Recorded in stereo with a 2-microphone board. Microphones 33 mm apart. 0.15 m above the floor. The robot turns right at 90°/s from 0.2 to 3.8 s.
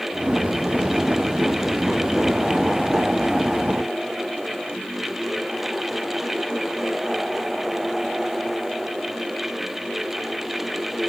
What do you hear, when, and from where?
Only background noise.